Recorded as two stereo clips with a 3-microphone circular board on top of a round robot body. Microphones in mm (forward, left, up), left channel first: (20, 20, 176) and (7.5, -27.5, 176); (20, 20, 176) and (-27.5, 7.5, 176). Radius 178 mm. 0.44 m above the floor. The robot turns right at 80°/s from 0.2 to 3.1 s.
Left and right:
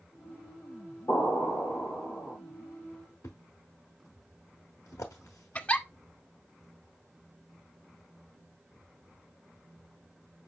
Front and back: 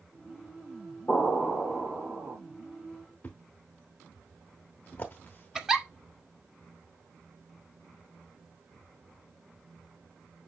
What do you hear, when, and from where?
1.1 s an explosion: 40° left, 5.5 m; by 2.4 s 145° left, 5.5 m
3.2 s a thud: 75° left, 0.9 m
5.5 s a giggle: 120° left, 1.4 m